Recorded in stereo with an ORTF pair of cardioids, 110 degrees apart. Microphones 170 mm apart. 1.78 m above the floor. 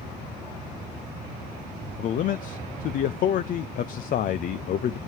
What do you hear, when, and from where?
2.0 s a man speaking: 55° left, 0.6 m